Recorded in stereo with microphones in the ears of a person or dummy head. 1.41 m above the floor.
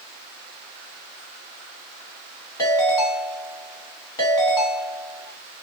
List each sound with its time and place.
2.6 s a ringtone: 25° left (ahead or behind), 1.5 m